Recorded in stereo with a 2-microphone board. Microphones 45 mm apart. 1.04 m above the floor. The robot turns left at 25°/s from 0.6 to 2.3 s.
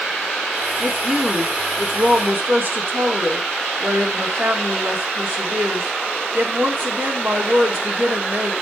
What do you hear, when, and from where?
0.8 s a woman speaking: 15° right, 3 m; by 8.5 s 55° right, 3 m